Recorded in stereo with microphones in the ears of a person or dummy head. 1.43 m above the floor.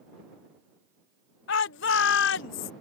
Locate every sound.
1.5 s a shout: 65° left (ahead or behind)